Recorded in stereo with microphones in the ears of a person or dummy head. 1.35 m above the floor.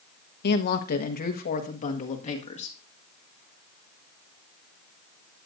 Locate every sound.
0.4 s a woman speaking: 60° left (ahead or behind), 1.1 m; by 2.8 s 40° left (ahead or behind), 2 m